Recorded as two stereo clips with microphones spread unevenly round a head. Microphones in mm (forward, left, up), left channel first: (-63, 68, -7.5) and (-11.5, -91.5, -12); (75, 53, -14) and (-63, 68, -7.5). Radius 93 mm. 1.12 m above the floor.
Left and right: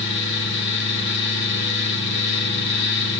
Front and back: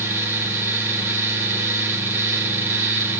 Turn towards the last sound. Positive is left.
turn(degrees=100)